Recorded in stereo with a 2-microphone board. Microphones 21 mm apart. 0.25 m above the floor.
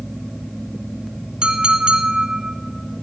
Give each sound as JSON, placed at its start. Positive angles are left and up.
{"t": 1.4, "sound": "a clink", "side_deg": -45, "distance_m": 1.3}